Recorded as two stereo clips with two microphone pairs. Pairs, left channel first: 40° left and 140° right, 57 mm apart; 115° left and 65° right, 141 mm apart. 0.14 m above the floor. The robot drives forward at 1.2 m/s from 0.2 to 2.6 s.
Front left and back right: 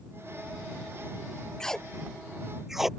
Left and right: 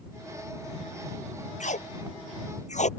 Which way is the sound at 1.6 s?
115° left.